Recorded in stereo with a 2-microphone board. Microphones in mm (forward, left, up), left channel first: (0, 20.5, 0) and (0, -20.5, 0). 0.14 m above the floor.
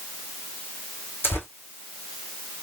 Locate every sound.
1.2 s tearing paper: 65° left (ahead or behind), 1.9 m